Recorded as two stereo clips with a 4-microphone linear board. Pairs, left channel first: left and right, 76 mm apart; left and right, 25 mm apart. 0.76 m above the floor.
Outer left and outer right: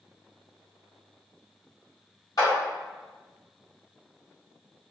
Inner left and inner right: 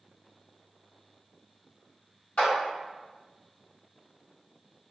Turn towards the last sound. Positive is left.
turn(degrees=55)  # may be behind; listen again after turning